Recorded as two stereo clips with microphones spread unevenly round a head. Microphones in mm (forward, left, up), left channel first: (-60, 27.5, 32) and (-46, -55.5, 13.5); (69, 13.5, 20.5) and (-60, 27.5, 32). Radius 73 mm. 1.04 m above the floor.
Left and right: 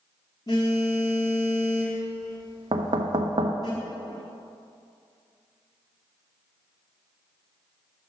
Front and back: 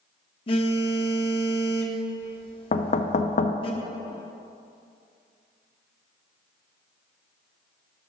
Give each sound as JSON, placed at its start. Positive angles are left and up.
{"t": 0.5, "sound": "a phone buzzing", "azimuth_deg": 40, "distance_m": 1.0}
{"t": 2.7, "sound": "knocking", "azimuth_deg": -40, "distance_m": 0.5}